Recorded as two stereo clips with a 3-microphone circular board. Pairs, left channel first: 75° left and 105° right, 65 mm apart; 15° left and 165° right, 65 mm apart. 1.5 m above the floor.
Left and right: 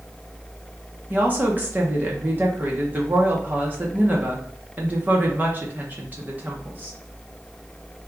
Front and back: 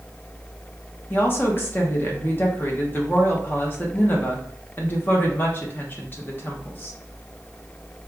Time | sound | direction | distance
1.1 | a woman speaking | 40° right | 1.0 m